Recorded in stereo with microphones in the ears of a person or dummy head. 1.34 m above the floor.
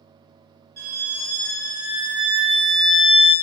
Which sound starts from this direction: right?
A violin, at 0.8 s.